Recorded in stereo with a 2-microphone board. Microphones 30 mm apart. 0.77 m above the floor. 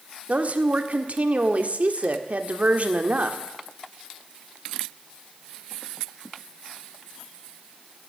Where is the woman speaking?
55° right (ahead or behind), 1.6 m.